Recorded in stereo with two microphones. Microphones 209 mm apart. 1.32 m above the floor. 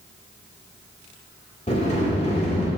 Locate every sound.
1.7 s a sliding door: 30° left (ahead or behind), 1.9 m